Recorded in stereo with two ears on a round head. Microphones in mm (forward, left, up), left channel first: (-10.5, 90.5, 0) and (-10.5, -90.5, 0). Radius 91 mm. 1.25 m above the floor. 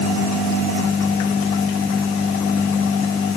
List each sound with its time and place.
Only background noise.